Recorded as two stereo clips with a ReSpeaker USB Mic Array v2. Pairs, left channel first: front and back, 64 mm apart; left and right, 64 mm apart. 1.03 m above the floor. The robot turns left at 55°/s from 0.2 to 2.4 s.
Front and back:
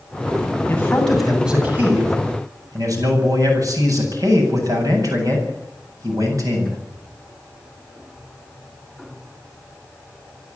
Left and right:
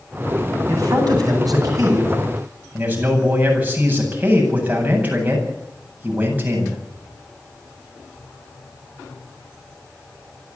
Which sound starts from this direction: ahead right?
A man speaking, at 0.7 s.